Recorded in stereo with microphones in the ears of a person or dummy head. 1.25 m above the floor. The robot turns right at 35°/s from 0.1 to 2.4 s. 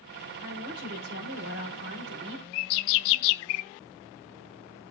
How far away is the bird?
About 0.5 m.